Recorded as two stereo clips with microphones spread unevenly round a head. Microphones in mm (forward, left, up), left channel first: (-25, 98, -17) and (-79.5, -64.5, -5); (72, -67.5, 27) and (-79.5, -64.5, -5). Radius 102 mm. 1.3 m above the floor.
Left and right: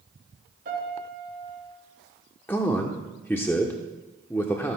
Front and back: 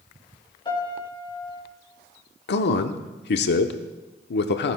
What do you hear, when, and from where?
0.7 s a piano: 60° right, 4.5 m
2.5 s a man speaking: 5° right, 0.8 m